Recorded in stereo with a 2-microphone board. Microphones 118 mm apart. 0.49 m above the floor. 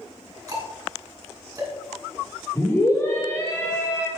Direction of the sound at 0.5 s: 30° right (ahead or behind).